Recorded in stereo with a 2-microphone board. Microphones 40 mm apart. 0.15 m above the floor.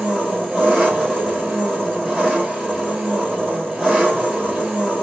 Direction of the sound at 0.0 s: 15° right (ahead or behind).